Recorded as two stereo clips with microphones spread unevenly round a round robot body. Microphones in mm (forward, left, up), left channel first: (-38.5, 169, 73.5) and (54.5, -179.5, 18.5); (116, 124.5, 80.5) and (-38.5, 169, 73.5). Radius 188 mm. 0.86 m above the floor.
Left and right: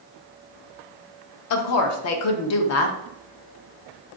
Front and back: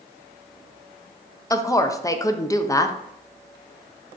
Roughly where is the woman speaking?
Ahead left.